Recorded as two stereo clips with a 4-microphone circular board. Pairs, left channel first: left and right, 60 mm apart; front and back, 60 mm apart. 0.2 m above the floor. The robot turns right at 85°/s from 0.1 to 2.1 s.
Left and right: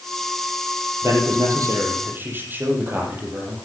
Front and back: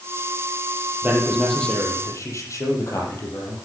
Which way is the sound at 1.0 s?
130° right.